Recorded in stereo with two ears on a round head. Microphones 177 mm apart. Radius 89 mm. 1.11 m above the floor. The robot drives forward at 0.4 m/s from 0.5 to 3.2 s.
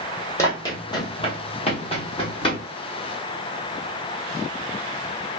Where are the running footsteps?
15° left (ahead or behind), 1.5 m; by 2.6 s 30° left (ahead or behind), 1.7 m.